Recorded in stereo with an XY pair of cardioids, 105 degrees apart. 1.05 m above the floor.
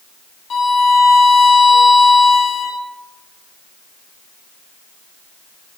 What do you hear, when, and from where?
0.5 s a violin: 55° left, 1.8 m